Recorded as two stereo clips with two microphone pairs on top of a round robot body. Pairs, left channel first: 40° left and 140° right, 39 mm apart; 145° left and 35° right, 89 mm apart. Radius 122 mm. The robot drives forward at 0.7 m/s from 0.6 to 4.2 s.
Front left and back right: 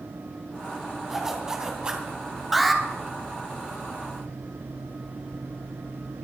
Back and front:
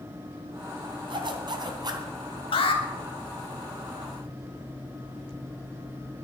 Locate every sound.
1.1 s a zipper: 60° right, 2.5 m; by 2.1 s 70° right, 2.5 m
2.5 s an alarm: 135° left, 3 m